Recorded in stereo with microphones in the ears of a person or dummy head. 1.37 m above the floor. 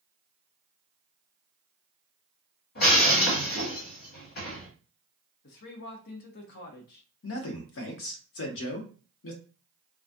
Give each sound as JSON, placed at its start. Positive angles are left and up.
{"t": 2.8, "sound": "breaking glass", "side_deg": 60, "distance_m": 1.4}
{"t": 5.4, "sound": "a man speaking", "side_deg": 60, "distance_m": 0.5}
{"t": 7.2, "sound": "a man speaking", "side_deg": 65, "distance_m": 0.6}